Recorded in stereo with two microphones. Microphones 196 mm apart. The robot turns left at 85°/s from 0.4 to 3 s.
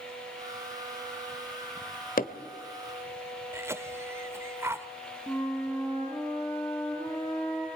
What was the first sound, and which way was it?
Hammering, 45° left (ahead or behind).